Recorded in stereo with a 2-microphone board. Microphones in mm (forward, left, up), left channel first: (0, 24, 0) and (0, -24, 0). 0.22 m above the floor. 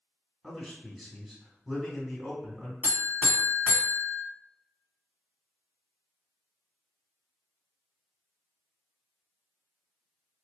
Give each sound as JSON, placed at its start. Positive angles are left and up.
{"t": 0.4, "sound": "a man speaking", "side_deg": 0, "distance_m": 1.8}
{"t": 2.8, "sound": "a buzzer", "side_deg": 30, "distance_m": 1.8}